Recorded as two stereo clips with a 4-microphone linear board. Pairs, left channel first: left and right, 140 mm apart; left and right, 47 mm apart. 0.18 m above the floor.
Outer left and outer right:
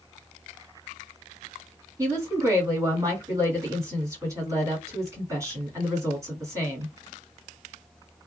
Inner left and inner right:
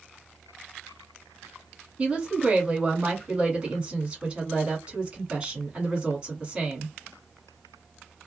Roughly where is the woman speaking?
Right.